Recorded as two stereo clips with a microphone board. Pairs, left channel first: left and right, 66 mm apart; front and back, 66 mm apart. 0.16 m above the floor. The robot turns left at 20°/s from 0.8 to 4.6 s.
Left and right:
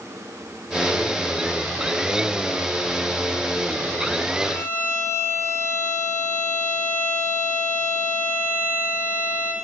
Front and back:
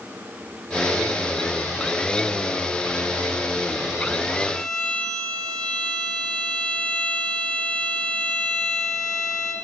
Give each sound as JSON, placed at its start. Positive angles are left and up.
{"t": 4.5, "sound": "a violin", "azimuth_deg": 85, "distance_m": 1.2}